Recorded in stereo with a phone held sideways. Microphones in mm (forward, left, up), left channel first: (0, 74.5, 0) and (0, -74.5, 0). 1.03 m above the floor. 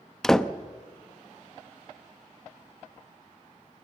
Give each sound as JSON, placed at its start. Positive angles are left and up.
{"t": 0.2, "sound": "a door slam", "side_deg": 5, "distance_m": 0.7}